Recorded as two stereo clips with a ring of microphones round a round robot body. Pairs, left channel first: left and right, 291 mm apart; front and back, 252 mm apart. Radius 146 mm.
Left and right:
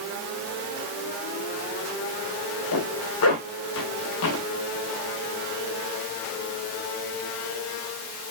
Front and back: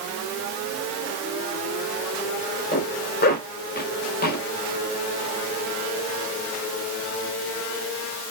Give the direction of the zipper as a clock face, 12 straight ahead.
10 o'clock.